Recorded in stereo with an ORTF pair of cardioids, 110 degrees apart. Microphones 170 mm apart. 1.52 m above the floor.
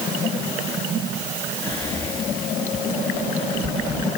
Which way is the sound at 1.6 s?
15° left.